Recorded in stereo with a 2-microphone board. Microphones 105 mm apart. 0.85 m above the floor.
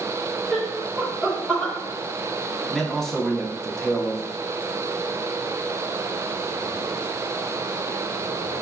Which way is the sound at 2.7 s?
5° left (ahead or behind).